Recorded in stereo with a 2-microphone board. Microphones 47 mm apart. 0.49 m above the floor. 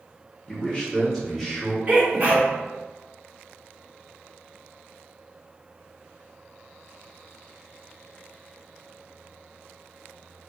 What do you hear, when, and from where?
0.5 s a man speaking: 20° left (ahead or behind), 1.0 m; by 1.8 s 5° left (ahead or behind), 1.1 m
1.9 s a sneeze: 35° right (ahead or behind), 1.0 m